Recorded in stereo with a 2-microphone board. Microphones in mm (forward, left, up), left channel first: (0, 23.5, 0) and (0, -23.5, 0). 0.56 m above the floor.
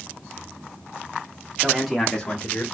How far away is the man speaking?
About 1.0 m.